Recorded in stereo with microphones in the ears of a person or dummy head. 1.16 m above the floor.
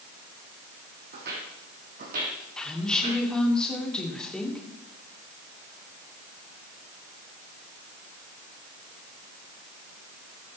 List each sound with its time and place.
1.1 s footsteps: 60° right (ahead or behind), 3.5 m; by 3.2 s 45° right (ahead or behind), 4 m
2.6 s a woman speaking: 5° left (ahead or behind), 2.5 m